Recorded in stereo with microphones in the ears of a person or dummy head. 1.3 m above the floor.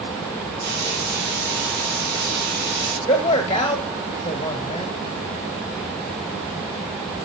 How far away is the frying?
About 3.5 m.